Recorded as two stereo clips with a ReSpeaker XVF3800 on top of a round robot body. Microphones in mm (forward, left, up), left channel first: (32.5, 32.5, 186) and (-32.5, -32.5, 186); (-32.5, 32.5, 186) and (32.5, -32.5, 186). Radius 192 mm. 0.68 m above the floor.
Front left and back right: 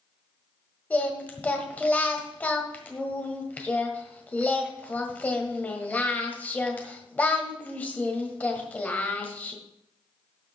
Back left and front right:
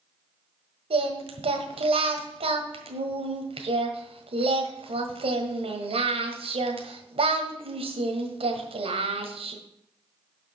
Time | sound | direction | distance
0.9 | singing | 30° right | 1.6 m